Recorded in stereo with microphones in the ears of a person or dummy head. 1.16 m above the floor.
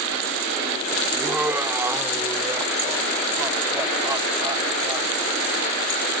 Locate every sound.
1.1 s laughter: 10° right (ahead or behind); by 5.1 s 20° right (ahead or behind)